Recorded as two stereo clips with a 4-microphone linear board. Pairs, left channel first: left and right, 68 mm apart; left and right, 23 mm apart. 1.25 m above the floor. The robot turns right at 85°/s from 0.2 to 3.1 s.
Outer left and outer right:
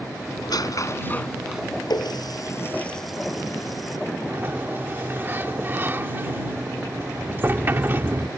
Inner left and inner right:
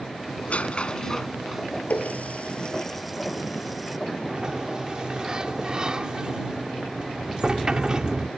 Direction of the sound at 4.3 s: 35° right (ahead or behind).